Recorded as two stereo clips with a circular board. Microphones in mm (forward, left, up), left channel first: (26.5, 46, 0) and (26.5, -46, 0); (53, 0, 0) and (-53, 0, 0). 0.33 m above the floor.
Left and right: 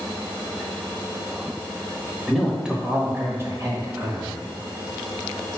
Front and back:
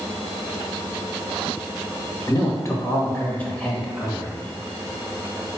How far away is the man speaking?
About 1.0 m.